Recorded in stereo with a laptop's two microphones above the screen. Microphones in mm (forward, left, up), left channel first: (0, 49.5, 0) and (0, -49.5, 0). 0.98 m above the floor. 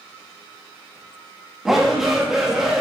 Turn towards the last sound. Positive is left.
turn(degrees=-5)  # may be behind; listen again after turning